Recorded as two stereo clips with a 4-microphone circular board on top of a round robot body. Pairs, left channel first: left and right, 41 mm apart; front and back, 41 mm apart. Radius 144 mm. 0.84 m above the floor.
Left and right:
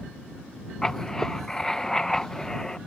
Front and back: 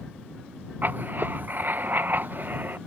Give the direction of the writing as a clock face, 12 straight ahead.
7 o'clock.